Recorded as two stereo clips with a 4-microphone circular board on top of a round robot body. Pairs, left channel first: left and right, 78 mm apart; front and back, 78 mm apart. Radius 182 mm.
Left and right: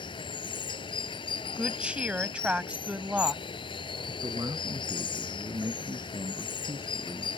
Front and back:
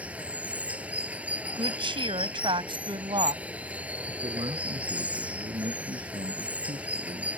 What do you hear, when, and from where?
0.0 s running water: 110° left
1.6 s a woman speaking: 165° right
4.1 s a man speaking: 150° right